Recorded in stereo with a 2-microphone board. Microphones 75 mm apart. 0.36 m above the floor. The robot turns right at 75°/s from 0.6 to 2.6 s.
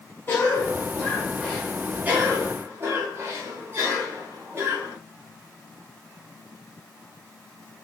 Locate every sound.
0.3 s a cough: 115° left, 0.9 m; by 5.0 s 95° right, 0.9 m